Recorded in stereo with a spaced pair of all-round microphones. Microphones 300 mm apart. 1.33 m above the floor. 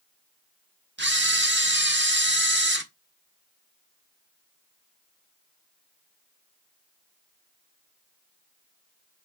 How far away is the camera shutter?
About 1.3 m.